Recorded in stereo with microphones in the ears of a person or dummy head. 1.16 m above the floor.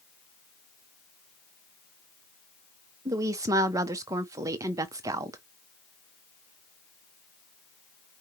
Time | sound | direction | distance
3.0 | a woman speaking | 20° right (ahead or behind) | 0.8 m